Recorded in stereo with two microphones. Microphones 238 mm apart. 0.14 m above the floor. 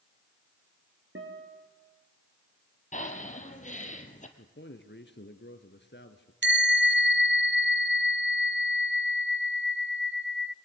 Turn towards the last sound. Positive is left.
turn(degrees=-50)  # may be behind; listen again after turning